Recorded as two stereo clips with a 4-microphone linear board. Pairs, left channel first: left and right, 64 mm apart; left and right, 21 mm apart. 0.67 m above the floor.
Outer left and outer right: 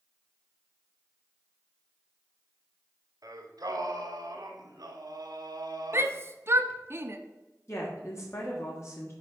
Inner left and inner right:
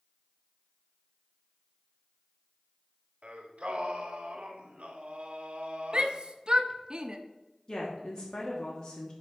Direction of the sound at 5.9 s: 40° right (ahead or behind).